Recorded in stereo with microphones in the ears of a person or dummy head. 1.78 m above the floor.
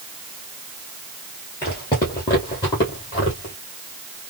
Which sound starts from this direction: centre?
Footsteps, at 1.6 s.